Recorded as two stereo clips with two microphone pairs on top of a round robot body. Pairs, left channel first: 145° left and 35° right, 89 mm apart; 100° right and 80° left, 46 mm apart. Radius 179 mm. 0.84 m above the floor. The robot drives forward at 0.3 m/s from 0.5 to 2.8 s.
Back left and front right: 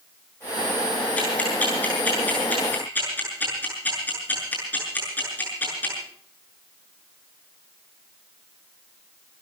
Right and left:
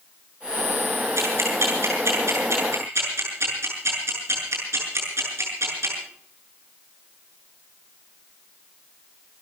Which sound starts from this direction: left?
Ticking, at 1.2 s.